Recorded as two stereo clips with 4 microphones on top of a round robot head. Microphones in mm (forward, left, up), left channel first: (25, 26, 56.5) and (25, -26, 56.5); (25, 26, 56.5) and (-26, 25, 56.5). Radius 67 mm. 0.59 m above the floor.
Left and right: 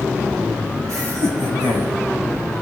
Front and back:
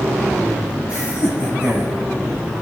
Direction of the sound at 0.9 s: 110° right.